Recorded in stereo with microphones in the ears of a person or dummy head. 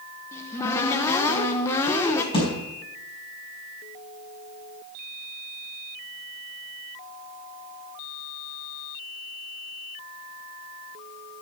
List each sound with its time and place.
0.3 s a cupboard door: 15° left (ahead or behind), 1.1 m
2.3 s a thud: 30° left (ahead or behind), 4 m